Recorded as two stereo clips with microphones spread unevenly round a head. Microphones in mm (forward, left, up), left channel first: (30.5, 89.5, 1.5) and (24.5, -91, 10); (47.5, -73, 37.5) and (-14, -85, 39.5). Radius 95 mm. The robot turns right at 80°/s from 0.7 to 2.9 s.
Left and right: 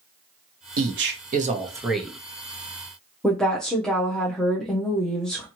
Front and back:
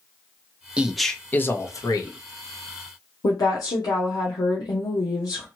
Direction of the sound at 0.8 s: 95° right.